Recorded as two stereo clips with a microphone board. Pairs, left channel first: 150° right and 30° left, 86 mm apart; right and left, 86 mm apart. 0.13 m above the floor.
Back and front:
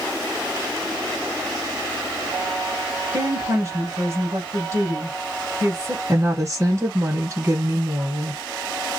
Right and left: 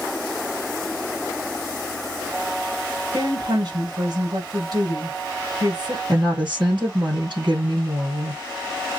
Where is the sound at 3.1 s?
75° left, 2 m.